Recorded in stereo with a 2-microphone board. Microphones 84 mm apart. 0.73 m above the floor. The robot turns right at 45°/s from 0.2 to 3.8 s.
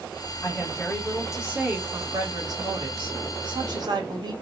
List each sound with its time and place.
0.4 s a woman speaking: 145° left, 2 m; by 4.3 s 60° right, 2 m